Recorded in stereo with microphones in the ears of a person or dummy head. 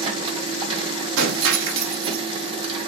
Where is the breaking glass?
75° right (ahead or behind), 1.7 m.